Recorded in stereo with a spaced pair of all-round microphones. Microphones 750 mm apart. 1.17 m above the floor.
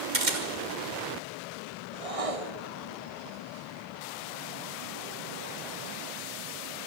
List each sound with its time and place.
0.1 s a camera shutter: 75° right (ahead or behind), 2.5 m
1.9 s a whoosh: 50° right (ahead or behind), 1.2 m